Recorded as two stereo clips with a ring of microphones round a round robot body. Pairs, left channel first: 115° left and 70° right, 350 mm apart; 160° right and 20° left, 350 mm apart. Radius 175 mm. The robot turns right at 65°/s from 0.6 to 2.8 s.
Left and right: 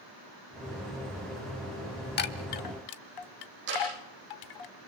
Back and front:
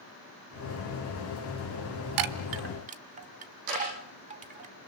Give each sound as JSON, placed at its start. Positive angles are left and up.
{"t": 2.2, "sound": "a chime", "azimuth_deg": 50, "distance_m": 1.0}
{"t": 3.7, "sound": "ticking", "azimuth_deg": -5, "distance_m": 9.0}